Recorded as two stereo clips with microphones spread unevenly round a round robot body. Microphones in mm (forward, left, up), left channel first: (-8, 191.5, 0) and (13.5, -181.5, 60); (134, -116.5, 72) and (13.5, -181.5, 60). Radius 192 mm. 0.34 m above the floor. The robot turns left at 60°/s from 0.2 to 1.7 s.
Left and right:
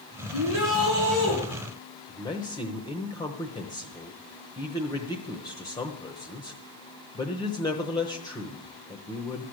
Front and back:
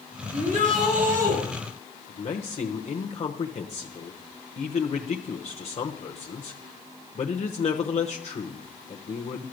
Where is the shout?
115° right, 6 m; by 1.4 s 175° right, 6 m.